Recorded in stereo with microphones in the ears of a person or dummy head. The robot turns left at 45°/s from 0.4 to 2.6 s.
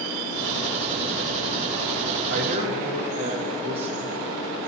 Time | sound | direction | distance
2.3 | a man speaking | 65° right (ahead or behind) | 1.9 m